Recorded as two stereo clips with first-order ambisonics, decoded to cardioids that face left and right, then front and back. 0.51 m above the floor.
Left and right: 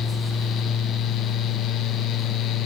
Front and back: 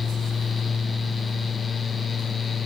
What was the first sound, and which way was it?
Only background noise.